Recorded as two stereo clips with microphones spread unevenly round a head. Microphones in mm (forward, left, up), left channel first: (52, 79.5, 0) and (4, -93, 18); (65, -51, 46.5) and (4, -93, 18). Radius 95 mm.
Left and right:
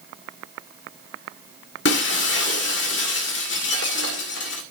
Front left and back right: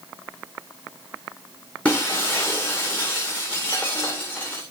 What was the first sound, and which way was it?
Breaking glass, 110° left.